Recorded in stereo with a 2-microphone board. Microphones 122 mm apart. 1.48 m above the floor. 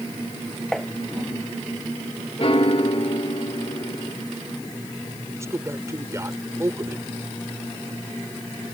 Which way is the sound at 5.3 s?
25° right (ahead or behind).